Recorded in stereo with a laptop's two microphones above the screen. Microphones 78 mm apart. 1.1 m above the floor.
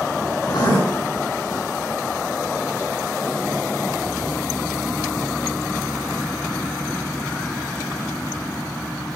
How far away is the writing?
About 6 m.